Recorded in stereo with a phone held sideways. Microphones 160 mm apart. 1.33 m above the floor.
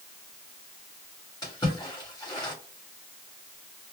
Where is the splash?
25° left (ahead or behind), 1.6 m.